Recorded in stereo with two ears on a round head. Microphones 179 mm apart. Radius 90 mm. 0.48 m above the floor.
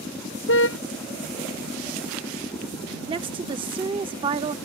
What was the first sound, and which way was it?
A car horn, 65° left (ahead or behind).